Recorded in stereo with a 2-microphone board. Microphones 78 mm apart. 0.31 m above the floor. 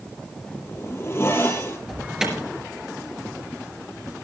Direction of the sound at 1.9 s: 5° right (ahead or behind).